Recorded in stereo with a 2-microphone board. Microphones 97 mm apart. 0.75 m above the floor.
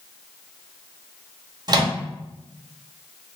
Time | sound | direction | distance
1.7 | a microwave | 45° right (ahead or behind) | 0.7 m